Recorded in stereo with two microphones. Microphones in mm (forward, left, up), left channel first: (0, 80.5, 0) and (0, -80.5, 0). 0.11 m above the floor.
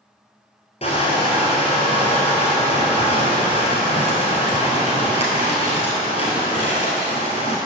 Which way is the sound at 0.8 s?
45° left (ahead or behind).